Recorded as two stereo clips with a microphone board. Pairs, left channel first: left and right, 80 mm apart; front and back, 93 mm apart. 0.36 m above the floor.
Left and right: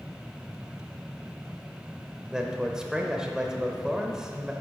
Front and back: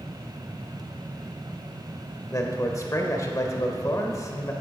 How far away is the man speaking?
About 1.0 m.